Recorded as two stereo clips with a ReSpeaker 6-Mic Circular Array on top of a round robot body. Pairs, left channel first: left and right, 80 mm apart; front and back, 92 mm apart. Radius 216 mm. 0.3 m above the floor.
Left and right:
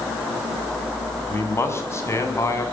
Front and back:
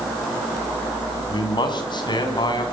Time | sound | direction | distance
1.3 | a man speaking | 35° left | 4.5 m